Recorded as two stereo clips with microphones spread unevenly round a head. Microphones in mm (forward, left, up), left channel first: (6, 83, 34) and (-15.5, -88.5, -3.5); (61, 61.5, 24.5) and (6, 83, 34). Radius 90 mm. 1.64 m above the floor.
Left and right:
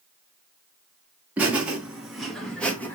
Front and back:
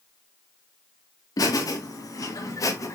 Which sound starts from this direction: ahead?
Laughter, at 1.4 s.